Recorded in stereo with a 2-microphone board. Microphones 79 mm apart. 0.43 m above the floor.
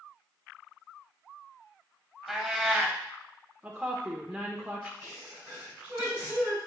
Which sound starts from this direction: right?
A sneeze, at 5.0 s.